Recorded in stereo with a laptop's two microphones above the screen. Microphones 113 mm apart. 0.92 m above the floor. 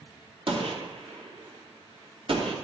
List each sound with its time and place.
0.5 s a gunshot: 60° right (ahead or behind), 2.5 m